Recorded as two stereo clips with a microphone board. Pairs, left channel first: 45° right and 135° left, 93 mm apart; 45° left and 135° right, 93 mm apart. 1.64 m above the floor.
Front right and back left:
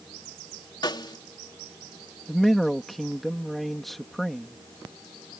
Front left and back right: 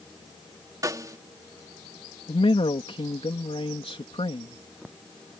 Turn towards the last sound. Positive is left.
turn(degrees=45)